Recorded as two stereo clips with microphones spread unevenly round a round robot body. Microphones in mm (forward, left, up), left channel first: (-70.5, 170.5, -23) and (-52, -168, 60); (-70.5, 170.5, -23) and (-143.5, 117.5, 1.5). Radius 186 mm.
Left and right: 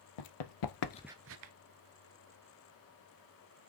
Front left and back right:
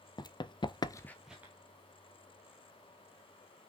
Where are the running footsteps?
85° left, 1.3 m; by 1.5 s 80° right, 1.0 m.